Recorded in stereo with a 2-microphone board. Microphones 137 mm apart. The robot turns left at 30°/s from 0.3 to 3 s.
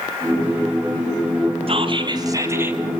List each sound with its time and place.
1.7 s whispering: 135° right, 3 m; by 2.8 s 170° right, 3 m